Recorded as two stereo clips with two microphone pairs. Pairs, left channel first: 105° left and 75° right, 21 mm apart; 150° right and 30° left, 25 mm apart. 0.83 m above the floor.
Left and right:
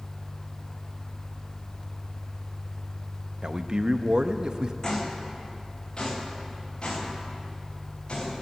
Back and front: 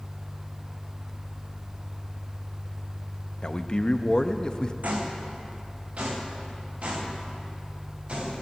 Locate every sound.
3.4 s a man speaking: 105° right, 0.6 m
4.8 s footsteps: 40° left, 2.5 m; by 8.4 s 70° left, 5.5 m